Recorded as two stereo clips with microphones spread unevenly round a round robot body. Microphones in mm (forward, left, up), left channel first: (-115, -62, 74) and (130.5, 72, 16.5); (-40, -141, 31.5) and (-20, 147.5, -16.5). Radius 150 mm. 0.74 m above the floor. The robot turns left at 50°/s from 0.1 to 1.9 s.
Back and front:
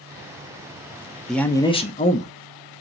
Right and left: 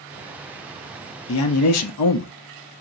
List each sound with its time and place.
1.3 s a man speaking: 50° right, 0.6 m; by 2.3 s 80° right, 0.6 m